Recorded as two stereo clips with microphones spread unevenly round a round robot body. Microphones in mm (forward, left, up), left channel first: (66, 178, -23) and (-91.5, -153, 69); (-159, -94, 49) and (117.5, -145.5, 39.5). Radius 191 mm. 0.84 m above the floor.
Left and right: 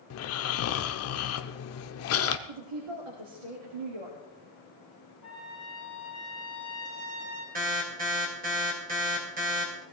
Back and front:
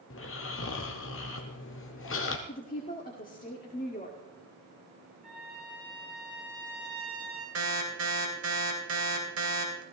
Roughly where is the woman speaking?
Behind right.